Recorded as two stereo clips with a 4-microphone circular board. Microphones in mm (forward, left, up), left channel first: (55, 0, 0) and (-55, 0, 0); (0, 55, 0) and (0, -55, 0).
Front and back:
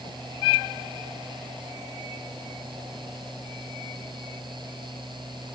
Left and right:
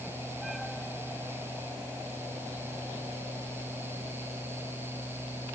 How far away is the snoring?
I don't hear snoring.